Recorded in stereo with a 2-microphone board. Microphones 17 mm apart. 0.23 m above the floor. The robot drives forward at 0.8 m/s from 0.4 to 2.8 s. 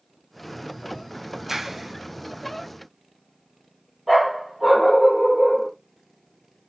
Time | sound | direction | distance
1.5 | a clap | 20° right (ahead or behind) | 1.1 m
4.1 | a dog barking | 15° right (ahead or behind) | 2.5 m